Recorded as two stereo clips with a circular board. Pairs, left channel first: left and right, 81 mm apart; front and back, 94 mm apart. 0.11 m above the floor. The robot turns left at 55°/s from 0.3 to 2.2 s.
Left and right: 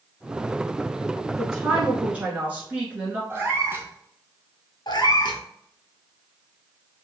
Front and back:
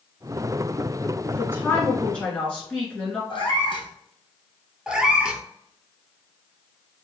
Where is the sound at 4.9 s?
100° left, 0.6 m.